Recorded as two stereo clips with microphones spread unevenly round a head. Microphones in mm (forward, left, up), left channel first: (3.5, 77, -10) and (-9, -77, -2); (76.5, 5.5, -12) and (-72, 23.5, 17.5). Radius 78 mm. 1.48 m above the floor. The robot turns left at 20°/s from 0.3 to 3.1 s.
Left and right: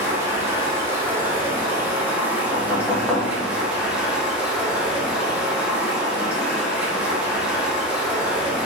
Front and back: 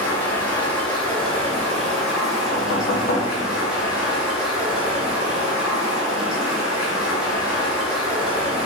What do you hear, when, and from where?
0.0 s running water: 100° right, 0.7 m; by 8.7 s 155° right, 0.7 m
2.5 s knocking: 10° left, 0.6 m; by 3.3 s straight ahead, 0.6 m